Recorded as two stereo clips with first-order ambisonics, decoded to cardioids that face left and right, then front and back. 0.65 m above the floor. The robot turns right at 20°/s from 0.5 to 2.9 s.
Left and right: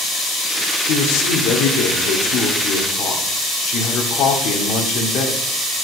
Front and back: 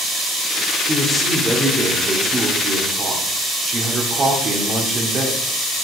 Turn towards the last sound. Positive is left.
turn(degrees=125)